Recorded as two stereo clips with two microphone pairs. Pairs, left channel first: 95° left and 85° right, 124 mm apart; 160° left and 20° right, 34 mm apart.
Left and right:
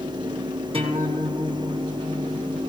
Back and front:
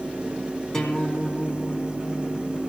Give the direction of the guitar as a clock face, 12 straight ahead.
4 o'clock.